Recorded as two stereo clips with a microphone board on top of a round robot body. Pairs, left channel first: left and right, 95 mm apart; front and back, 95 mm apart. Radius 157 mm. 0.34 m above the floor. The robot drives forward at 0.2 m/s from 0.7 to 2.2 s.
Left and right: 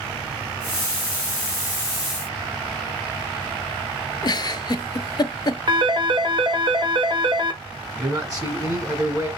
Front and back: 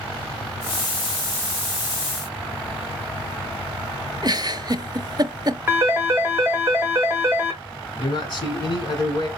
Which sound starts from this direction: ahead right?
A man speaking, at 8.0 s.